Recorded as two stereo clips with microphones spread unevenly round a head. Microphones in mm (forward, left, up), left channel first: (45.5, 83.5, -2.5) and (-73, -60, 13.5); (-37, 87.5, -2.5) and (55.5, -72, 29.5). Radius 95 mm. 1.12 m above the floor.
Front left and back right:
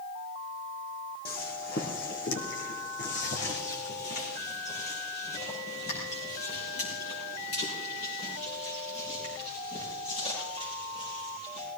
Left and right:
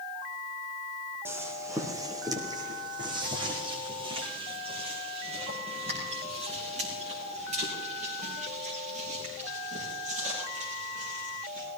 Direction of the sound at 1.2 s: 10° left.